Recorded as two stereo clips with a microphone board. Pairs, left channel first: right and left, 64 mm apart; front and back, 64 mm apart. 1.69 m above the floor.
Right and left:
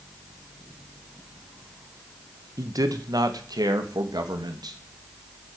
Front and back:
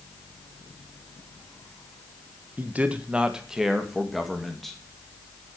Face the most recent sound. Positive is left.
turn(degrees=85)